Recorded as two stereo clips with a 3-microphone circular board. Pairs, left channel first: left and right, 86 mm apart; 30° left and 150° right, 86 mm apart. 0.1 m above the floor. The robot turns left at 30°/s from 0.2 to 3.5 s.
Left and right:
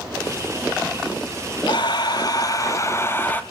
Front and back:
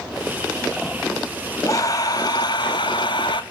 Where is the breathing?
75° left, 0.5 m; by 3.4 s 25° left, 0.5 m.